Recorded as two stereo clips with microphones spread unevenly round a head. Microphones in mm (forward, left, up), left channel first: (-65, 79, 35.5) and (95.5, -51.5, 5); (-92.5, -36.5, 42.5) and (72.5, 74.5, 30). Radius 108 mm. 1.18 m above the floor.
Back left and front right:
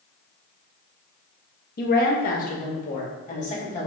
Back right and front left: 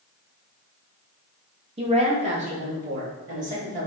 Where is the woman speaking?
95° left, 1.1 m; by 3.9 s 85° left, 2 m.